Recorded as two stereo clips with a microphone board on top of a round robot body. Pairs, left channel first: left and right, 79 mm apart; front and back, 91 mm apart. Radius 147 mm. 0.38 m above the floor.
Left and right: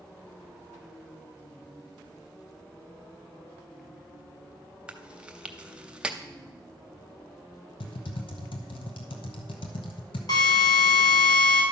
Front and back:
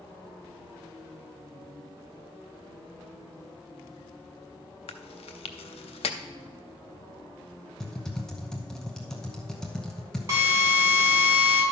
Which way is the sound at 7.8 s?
85° left.